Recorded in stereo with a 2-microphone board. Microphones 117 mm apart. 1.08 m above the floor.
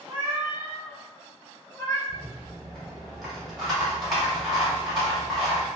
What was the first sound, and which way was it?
A cat meowing, 20° right (ahead or behind).